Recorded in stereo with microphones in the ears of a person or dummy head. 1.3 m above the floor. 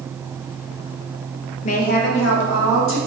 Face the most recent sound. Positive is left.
turn(degrees=75)  # may be behind; listen again after turning